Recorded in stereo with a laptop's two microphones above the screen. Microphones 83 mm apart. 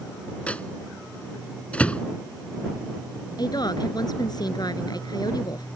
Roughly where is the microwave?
Centre.